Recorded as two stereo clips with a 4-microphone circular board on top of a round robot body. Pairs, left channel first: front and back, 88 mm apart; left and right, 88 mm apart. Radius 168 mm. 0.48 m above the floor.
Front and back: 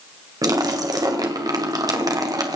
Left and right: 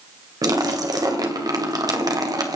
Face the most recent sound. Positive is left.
turn(degrees=-135)